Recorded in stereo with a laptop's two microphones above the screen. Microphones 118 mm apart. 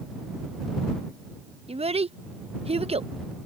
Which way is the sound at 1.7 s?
60° right (ahead or behind).